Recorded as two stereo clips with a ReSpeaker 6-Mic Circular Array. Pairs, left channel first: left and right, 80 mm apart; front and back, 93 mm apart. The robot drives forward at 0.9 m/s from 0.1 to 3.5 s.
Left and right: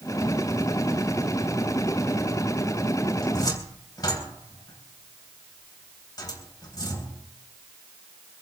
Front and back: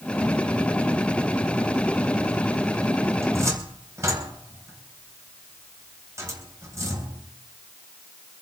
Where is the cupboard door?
120° left, 3.5 m; by 7.2 s 125° left, 3.5 m.